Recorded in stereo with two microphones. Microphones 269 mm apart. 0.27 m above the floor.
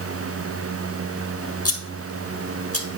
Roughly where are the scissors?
Left.